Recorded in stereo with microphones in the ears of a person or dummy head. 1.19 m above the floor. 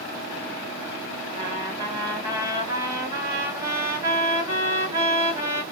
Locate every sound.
1.3 s a trumpet: 20° right (ahead or behind), 1.1 m